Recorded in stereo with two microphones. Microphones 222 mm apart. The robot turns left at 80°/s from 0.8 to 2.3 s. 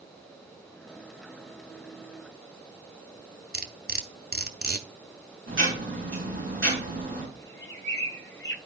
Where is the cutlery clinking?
45° right (ahead or behind), 0.8 m.